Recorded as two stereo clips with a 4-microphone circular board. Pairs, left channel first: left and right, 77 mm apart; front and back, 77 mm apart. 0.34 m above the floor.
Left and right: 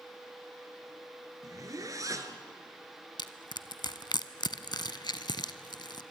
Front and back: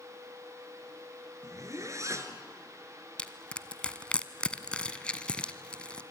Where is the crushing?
75° left, 0.9 m.